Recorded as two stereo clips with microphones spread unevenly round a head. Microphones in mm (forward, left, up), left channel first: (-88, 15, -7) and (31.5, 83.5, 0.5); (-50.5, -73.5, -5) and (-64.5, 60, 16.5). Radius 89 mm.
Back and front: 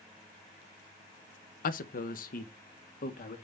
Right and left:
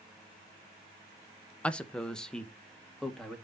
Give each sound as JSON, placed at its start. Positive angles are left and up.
{"t": 1.6, "sound": "a man speaking", "azimuth_deg": -170, "distance_m": 0.7}